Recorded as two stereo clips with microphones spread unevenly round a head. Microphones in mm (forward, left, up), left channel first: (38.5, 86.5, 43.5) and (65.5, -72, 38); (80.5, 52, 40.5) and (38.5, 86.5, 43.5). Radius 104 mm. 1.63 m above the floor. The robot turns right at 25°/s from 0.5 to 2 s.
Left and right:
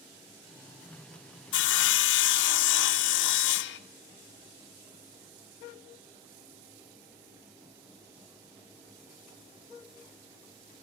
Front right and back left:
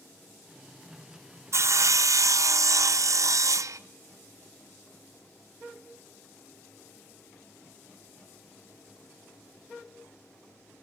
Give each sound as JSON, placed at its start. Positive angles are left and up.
{"t": 1.5, "sound": "sawing", "azimuth_deg": 105, "distance_m": 0.9}